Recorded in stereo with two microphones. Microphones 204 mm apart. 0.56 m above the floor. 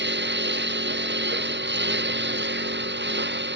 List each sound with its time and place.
0.0 s a lawn mower: 55° right (ahead or behind)